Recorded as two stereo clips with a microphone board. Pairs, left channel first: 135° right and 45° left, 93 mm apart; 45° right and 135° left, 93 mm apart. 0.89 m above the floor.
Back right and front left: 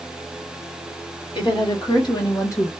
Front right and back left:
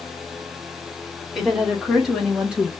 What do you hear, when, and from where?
1.4 s a woman speaking: 135° right, 1.6 m; by 2.7 s 160° right, 0.9 m